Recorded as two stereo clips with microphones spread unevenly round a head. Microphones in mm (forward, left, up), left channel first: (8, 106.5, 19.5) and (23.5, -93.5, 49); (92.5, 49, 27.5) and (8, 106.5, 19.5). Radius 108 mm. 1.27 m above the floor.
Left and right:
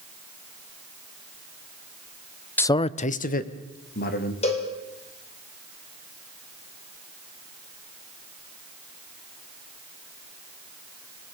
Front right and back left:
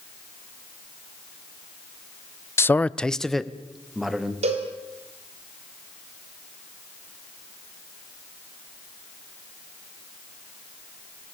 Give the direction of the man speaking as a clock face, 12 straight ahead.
11 o'clock.